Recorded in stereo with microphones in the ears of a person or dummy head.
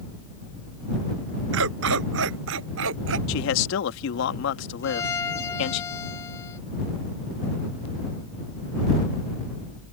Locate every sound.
1.5 s a dog barking: 75° right (ahead or behind)
3.3 s a man speaking: 75° left (ahead or behind)
4.8 s a violin: 15° left (ahead or behind)